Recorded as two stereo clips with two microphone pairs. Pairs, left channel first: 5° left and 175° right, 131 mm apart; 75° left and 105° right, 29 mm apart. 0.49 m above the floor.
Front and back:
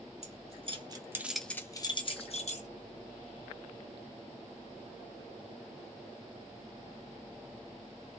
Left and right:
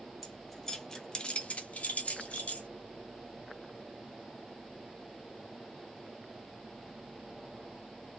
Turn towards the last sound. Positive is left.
turn(degrees=30)